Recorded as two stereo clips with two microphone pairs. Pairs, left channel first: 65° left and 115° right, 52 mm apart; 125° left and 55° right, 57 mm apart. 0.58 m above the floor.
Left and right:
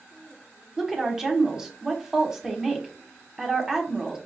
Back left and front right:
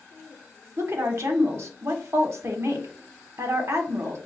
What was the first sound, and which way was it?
A woman speaking, 40° right.